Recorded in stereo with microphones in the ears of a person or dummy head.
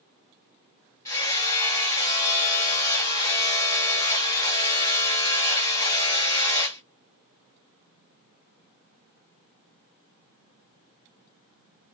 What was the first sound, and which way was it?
Hammering, 15° left (ahead or behind).